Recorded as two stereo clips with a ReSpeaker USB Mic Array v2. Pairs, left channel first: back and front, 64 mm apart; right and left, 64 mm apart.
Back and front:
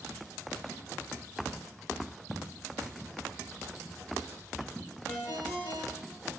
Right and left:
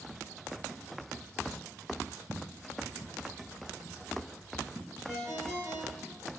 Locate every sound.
2.3 s footsteps: 100° left, 0.9 m; by 5.0 s 135° left, 2 m
5.1 s a ringtone: 160° left, 1.7 m